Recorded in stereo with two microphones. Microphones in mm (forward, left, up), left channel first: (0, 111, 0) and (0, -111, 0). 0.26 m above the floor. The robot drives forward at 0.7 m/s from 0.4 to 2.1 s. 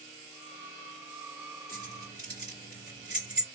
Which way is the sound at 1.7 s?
45° left (ahead or behind).